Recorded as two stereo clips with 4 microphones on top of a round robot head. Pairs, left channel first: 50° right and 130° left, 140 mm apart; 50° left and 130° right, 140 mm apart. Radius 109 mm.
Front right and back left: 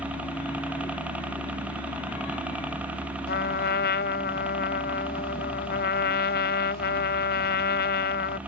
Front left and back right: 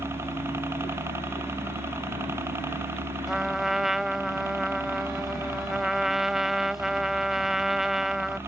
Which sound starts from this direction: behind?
A helicopter, at 0.0 s.